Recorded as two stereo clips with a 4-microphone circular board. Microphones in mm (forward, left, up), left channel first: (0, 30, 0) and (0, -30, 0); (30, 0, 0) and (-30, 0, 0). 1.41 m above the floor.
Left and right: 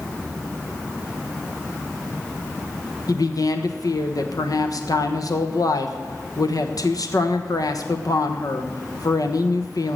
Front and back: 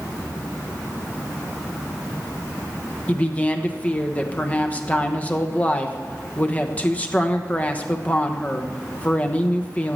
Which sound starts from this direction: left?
A woman speaking, at 3.1 s.